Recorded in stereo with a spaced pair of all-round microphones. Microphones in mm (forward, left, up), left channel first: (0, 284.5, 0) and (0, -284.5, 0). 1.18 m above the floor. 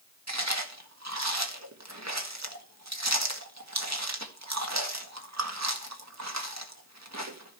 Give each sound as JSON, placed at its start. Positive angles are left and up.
{"t": 0.3, "sound": "chewing", "side_deg": -25, "distance_m": 1.8}